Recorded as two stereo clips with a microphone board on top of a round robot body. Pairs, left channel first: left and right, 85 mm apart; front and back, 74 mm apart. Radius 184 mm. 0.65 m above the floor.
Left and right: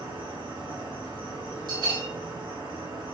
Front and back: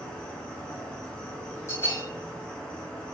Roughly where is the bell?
Ahead right.